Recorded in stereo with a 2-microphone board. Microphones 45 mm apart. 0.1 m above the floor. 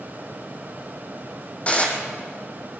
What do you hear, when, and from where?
1.7 s dishes clattering: 30° left (ahead or behind), 2.5 m